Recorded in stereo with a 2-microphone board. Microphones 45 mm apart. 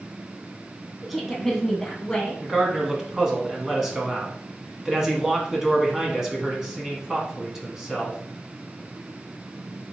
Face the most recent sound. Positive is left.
turn(degrees=-10)  # may be behind; listen again after turning